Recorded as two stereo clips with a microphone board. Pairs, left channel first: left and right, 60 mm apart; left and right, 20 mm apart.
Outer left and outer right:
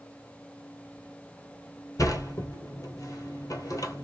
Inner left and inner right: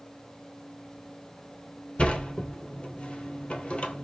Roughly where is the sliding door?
Left.